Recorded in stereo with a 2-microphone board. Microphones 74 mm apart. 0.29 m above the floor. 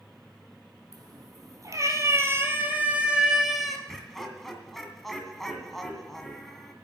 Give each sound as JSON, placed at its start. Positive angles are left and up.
{"t": 0.9, "sound": "a cat meowing", "side_deg": -60, "distance_m": 2.5}
{"t": 3.9, "sound": "laughter", "side_deg": 5, "distance_m": 2.0}